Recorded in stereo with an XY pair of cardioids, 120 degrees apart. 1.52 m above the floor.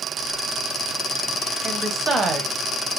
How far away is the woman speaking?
About 0.9 m.